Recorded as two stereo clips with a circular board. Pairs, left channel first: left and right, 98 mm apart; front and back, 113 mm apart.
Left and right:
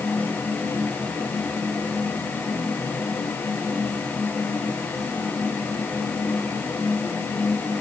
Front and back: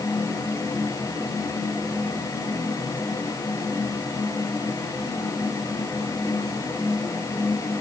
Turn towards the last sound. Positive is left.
No sound to turn to.